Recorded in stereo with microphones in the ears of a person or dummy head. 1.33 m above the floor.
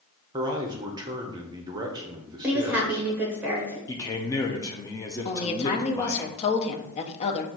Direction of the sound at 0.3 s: 15° right (ahead or behind).